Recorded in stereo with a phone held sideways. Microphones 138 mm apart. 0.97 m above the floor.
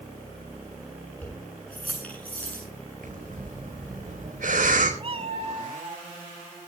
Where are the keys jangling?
10° left (ahead or behind), 9 m.